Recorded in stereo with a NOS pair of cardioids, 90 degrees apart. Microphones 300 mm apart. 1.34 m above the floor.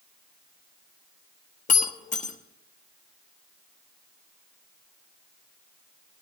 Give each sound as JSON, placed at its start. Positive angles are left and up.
{"t": 1.7, "sound": "breaking glass", "azimuth_deg": 25, "distance_m": 1.4}